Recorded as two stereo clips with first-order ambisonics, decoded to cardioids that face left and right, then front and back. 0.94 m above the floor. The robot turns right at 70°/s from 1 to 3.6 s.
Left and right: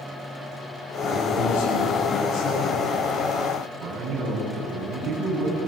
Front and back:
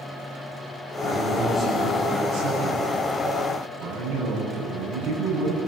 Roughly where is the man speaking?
Ahead left.